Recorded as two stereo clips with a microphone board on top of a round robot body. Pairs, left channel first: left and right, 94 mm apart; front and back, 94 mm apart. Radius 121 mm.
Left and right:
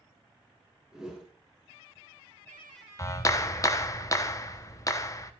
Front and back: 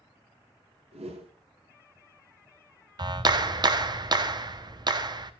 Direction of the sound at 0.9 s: 175° right.